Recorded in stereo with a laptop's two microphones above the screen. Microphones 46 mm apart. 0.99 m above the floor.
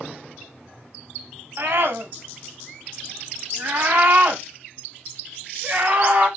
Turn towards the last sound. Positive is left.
turn(degrees=-30)  # may be behind; listen again after turning